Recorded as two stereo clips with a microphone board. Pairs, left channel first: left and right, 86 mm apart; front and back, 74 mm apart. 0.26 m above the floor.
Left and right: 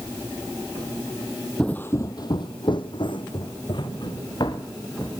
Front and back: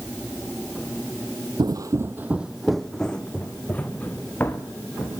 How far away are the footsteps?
About 0.5 m.